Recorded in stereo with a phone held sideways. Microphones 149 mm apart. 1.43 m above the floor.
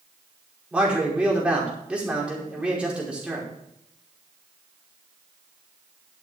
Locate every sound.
0.7 s a man speaking: 10° right (ahead or behind), 5 m